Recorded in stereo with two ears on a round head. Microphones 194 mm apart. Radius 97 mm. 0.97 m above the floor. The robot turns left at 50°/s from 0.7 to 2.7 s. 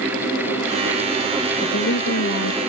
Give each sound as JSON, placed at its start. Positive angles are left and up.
{"t": 1.6, "sound": "a woman speaking", "azimuth_deg": 135}